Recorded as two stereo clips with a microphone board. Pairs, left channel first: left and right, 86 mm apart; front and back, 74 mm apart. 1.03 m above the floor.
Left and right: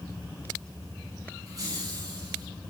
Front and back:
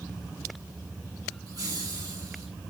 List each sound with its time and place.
1.5 s laughter: 140° right, 9.5 m; by 2.5 s 135° right, 11 m